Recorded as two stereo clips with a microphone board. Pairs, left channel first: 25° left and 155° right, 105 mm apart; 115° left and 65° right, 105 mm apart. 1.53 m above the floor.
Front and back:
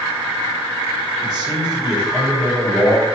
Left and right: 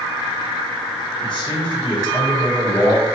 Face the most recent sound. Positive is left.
turn(degrees=150)